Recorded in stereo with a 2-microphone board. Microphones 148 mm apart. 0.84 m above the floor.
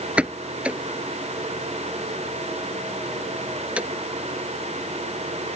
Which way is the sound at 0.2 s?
10° right (ahead or behind).